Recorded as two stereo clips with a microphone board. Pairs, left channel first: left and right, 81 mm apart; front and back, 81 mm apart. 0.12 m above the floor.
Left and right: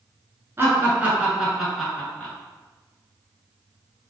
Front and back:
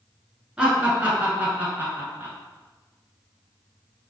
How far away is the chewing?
I don't hear chewing.